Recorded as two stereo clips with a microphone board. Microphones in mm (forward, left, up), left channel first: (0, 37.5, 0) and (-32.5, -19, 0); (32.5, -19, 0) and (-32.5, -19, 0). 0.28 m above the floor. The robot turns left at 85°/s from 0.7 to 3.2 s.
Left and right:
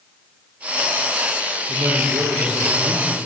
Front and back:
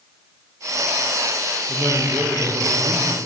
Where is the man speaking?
90° right, 7.5 m; by 3.2 s 145° left, 7.5 m.